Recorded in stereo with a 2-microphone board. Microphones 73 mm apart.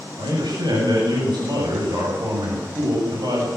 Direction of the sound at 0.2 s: 70° right (ahead or behind).